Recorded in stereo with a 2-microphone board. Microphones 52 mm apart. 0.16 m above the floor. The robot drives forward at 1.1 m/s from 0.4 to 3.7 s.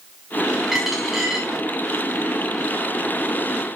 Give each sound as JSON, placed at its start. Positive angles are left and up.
{"t": 0.7, "sound": "a dropped coin", "side_deg": -5, "distance_m": 6.5}